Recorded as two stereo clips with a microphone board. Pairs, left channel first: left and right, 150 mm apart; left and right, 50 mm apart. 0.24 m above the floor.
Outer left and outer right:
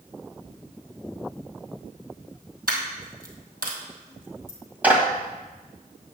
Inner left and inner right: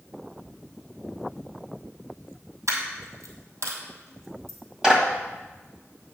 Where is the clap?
10° right (ahead or behind), 1.3 m.